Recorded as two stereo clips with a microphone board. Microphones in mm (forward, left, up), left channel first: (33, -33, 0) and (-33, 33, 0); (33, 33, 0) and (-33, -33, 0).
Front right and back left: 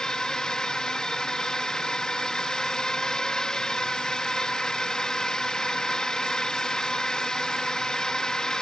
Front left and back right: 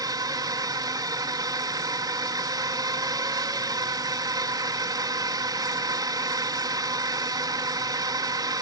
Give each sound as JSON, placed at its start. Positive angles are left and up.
{"t": 0.0, "sound": "a drone", "azimuth_deg": -125}